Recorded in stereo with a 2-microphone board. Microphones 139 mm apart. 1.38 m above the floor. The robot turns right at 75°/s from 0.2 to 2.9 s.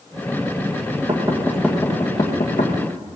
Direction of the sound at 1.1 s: 45° right (ahead or behind).